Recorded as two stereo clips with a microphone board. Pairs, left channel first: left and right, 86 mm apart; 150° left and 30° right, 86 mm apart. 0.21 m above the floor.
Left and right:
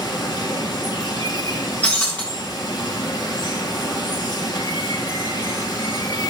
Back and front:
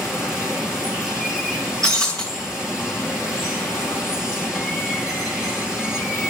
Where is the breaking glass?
20° left, 9 m.